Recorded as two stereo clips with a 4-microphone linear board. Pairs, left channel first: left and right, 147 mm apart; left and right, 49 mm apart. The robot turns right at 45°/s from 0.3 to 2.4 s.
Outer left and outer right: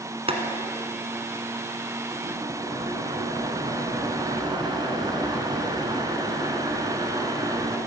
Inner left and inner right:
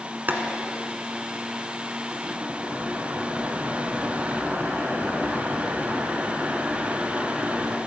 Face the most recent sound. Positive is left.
turn(degrees=-35)